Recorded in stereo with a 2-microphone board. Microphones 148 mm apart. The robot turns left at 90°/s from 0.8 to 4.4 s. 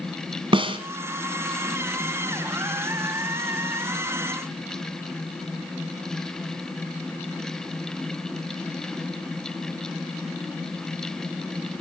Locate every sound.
0.5 s a snare drum: 35° right (ahead or behind), 2.0 m